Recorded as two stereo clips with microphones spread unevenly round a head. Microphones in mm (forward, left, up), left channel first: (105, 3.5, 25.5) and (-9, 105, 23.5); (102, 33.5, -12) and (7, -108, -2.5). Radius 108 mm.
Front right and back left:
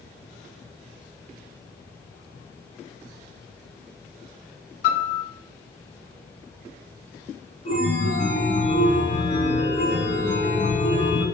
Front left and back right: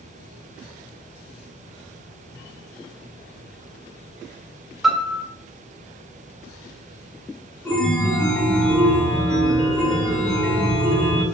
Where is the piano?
35° right, 0.5 m.